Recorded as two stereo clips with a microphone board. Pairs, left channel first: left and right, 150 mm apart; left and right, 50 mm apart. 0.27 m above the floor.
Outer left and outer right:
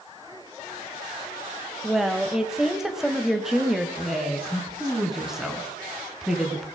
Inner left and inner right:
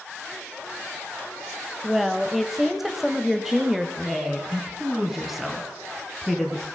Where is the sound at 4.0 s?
5° right (ahead or behind), 2.5 m.